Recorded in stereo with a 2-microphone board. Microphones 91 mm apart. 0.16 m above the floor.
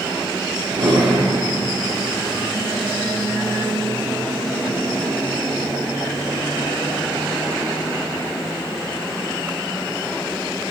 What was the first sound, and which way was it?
A drawer, 55° right (ahead or behind).